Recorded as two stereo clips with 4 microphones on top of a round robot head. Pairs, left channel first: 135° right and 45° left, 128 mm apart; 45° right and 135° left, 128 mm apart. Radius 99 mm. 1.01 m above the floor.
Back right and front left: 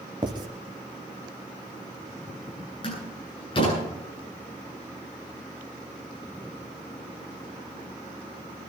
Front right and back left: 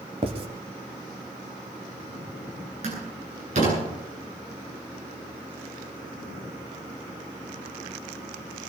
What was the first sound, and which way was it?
Writing, 100° left.